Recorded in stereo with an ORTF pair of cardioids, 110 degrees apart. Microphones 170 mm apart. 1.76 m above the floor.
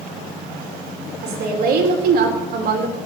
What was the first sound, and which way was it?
A woman speaking, 60° right.